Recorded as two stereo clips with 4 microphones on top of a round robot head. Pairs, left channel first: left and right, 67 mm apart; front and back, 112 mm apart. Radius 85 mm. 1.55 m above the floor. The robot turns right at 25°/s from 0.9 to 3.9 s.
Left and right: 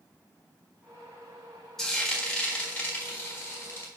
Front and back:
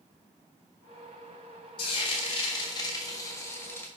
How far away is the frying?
About 1.4 m.